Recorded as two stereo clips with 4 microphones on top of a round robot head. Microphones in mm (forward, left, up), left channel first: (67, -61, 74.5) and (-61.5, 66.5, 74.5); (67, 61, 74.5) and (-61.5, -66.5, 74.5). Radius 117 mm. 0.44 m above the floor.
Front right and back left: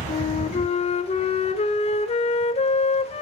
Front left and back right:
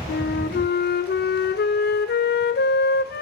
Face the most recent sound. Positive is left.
turn(degrees=10)